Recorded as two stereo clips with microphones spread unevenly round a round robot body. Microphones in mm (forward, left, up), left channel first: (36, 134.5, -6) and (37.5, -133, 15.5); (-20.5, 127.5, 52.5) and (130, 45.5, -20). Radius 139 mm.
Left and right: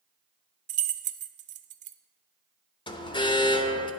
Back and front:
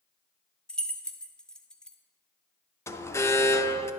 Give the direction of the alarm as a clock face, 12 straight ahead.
10 o'clock.